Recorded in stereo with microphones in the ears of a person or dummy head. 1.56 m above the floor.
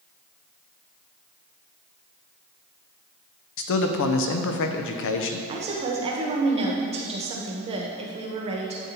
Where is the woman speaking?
35° right (ahead or behind), 1.1 m.